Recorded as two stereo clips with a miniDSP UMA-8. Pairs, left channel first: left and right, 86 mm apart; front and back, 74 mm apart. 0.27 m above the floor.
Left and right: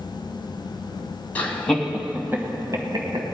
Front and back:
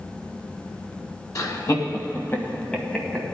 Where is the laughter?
25° left, 2 m; by 3.2 s 85° right, 2.5 m.